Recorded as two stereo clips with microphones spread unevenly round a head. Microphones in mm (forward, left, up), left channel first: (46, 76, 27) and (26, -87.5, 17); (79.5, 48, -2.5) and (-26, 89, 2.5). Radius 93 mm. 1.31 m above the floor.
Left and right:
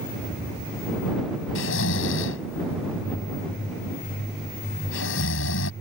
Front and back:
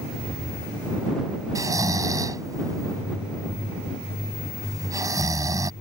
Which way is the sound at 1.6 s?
100° left.